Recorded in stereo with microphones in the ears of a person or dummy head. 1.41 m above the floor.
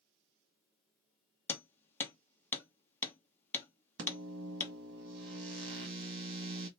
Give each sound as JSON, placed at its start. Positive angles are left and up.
{"t": 1.5, "sound": "hammering", "side_deg": 15, "distance_m": 0.9}
{"t": 4.0, "sound": "a microwave", "side_deg": -80, "distance_m": 1.7}